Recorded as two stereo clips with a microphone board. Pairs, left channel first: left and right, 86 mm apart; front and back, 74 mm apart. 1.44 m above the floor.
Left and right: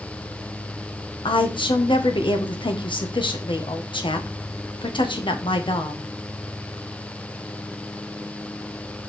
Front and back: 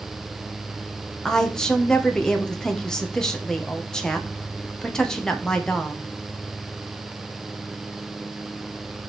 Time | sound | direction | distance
1.2 | a woman speaking | 80° left | 1.5 m